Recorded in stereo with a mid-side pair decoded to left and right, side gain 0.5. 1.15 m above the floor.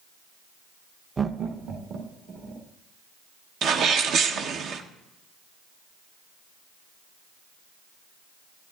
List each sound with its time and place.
1.2 s laughter: 20° right, 0.5 m; by 2.7 s 70° right, 2.5 m
3.6 s a sneeze: 65° right, 0.8 m